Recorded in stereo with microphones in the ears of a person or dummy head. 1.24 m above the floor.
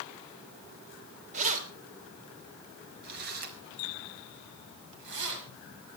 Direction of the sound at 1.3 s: 40° right (ahead or behind).